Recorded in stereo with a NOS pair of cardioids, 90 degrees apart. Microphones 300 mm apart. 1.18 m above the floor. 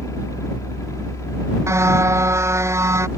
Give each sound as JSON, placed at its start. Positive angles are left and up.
{"t": 0.0, "sound": "a fan", "azimuth_deg": 10}
{"t": 1.7, "sound": "a car horn", "azimuth_deg": -10}